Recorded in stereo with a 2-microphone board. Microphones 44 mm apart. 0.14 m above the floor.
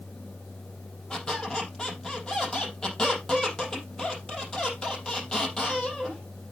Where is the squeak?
15° left (ahead or behind), 3.5 m.